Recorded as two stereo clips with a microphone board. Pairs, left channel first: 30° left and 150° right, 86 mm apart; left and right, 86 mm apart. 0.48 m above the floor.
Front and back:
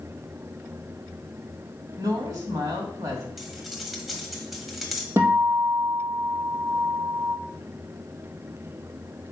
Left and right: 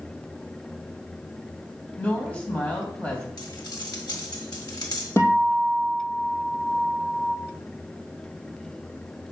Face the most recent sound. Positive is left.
turn(degrees=150)